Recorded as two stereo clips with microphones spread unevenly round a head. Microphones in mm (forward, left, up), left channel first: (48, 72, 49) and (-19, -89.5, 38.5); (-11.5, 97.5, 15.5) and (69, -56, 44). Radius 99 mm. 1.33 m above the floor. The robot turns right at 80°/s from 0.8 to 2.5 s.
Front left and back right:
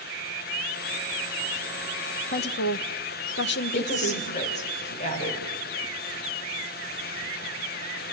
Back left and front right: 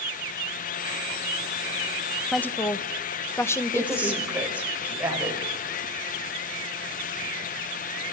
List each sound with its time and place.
2.3 s a woman speaking: 25° left, 1.0 m; by 4.2 s 40° left, 1.0 m
3.8 s a woman speaking: 20° left, 5.5 m